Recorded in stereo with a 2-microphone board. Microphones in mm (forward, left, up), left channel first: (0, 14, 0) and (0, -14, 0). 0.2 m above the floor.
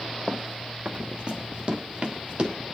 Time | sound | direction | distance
0.3 | running footsteps | 35° right (ahead or behind) | 0.6 m